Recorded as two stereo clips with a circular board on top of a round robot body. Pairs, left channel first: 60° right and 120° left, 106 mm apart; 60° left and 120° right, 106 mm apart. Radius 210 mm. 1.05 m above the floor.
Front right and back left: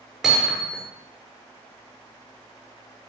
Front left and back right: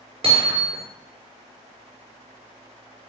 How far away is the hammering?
About 5 m.